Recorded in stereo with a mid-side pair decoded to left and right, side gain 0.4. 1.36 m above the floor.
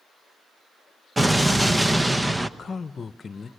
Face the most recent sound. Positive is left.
turn(degrees=45)